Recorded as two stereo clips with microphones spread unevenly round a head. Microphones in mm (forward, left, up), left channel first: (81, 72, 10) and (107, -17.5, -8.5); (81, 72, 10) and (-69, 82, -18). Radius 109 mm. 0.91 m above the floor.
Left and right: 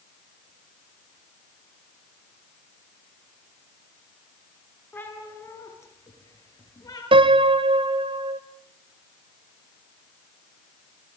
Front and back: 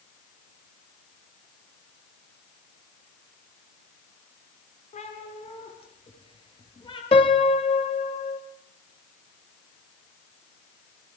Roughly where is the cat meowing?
Ahead left.